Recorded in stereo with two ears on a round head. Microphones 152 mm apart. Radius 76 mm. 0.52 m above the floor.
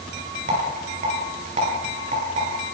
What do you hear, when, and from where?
0.5 s a rattle: 40° right (ahead or behind), 9 m